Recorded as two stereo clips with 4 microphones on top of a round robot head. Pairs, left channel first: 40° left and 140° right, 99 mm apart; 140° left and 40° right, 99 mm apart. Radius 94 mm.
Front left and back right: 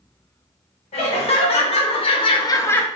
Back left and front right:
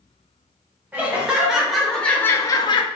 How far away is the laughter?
About 1.3 m.